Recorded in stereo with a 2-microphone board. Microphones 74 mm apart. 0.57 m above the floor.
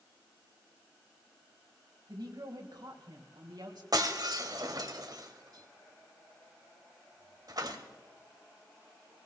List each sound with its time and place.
2.1 s a woman speaking: 70° right (ahead or behind), 3 m; by 3.8 s 75° right (ahead or behind), 2.5 m
3.9 s breaking glass: 60° right (ahead or behind), 1.5 m